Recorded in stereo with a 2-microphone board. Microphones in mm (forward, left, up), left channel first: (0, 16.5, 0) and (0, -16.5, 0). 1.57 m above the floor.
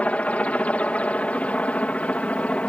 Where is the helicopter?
50° left (ahead or behind).